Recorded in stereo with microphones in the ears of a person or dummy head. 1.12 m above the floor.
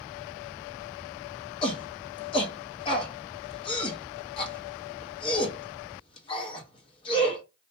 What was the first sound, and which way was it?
A shout, 25° left (ahead or behind).